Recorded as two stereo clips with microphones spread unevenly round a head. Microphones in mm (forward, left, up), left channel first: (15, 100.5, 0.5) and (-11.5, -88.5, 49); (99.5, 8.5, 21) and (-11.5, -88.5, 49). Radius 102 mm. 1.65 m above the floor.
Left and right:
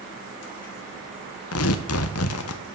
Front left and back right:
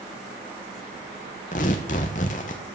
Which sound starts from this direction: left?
Tearing paper, at 1.5 s.